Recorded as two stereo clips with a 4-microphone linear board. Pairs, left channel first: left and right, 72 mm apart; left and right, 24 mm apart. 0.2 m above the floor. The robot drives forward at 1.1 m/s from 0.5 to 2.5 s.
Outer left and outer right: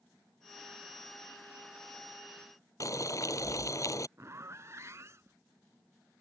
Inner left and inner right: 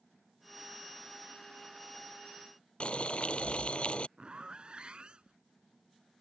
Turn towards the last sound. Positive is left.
turn(degrees=-40)  # may be behind; listen again after turning